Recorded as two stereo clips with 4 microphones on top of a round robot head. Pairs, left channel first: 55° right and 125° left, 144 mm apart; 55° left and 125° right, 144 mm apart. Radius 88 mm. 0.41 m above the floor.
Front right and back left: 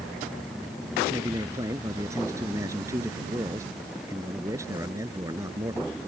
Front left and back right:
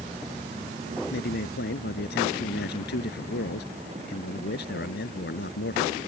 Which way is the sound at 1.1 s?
55° left.